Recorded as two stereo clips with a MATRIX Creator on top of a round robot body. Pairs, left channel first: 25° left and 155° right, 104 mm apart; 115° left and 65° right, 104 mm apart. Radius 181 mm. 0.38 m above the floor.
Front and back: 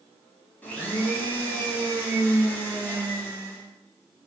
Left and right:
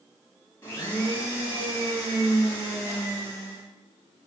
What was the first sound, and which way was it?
A blender, 80° left.